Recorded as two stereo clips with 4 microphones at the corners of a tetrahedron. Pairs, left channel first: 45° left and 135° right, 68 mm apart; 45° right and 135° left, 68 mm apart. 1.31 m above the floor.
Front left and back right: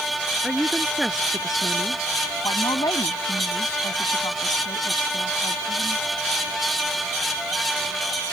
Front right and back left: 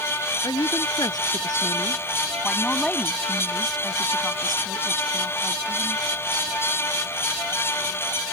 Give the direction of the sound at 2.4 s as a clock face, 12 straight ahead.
11 o'clock.